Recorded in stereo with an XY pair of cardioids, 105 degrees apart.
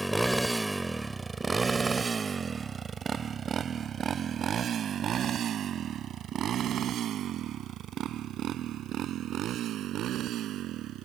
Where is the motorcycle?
5° right; by 11.1 s 75° right.